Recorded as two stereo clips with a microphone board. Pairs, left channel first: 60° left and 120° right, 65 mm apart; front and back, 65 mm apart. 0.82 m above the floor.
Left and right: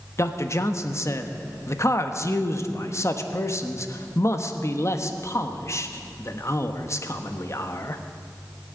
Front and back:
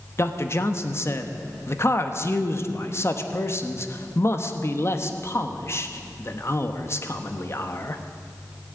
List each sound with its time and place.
0.2 s a man speaking: 30° left, 0.9 m